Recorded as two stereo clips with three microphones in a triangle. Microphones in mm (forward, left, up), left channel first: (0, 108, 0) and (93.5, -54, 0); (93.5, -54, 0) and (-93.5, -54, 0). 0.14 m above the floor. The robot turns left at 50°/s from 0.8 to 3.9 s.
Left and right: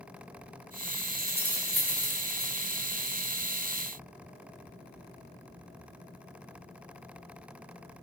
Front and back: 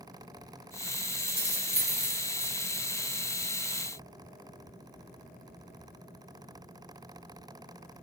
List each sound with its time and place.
1.2 s keys jangling: 120° right, 1.3 m; by 2.5 s 170° left, 1.3 m